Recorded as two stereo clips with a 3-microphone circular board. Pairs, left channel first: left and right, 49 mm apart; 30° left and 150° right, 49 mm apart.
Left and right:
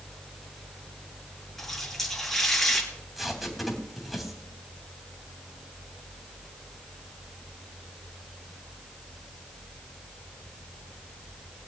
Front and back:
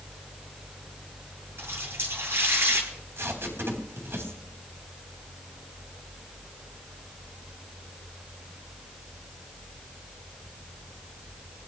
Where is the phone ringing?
No phone ringing in this recording.